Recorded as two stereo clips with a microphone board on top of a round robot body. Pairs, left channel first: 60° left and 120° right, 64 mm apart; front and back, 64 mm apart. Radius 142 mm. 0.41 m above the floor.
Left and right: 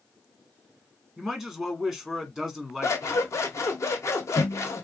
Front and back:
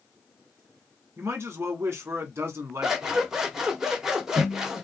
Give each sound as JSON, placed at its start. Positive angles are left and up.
{"t": 1.2, "sound": "a man speaking", "azimuth_deg": 145, "distance_m": 1.5}
{"t": 2.8, "sound": "scissors", "azimuth_deg": 100, "distance_m": 1.5}